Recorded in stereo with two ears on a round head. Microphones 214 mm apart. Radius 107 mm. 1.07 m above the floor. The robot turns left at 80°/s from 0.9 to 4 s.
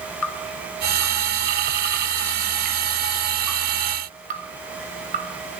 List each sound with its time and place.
0.2 s dripping: 75° left (ahead or behind), 6 m; by 5.6 s 35° right (ahead or behind), 6 m